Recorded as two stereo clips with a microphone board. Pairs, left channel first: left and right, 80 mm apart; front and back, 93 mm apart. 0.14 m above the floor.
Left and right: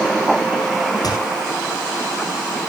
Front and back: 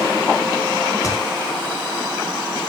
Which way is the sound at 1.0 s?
55° left.